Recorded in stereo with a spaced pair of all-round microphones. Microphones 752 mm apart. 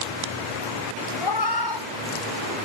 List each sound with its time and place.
1.2 s a cat meowing: 35° left (ahead or behind), 0.9 m; by 2.5 s 25° left (ahead or behind), 1.5 m